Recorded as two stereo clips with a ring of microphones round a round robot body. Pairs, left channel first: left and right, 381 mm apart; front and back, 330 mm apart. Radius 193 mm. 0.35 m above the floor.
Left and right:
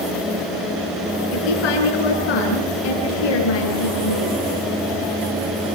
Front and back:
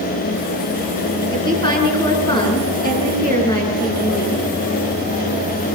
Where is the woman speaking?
75° left, 5 m.